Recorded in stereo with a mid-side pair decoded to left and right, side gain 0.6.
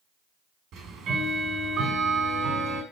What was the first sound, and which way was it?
Ticking, 55° right.